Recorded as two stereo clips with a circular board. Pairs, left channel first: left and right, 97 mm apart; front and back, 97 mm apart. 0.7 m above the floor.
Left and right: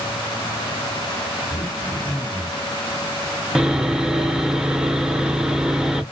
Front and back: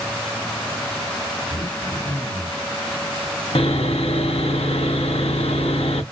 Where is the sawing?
10° right, 0.6 m.